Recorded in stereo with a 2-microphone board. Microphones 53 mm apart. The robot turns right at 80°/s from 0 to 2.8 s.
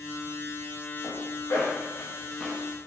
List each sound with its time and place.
1.0 s a zipper: 50° left (ahead or behind), 1.6 m; by 2.6 s centre (ahead or behind), 1.6 m